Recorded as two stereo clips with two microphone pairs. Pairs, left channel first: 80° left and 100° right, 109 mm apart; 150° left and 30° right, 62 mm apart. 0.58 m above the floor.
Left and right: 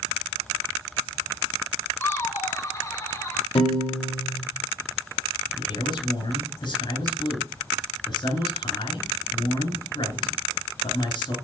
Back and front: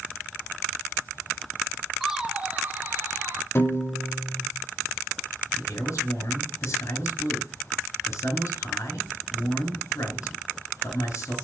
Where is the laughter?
55° left, 0.7 m; by 3.5 s 15° left, 1.9 m.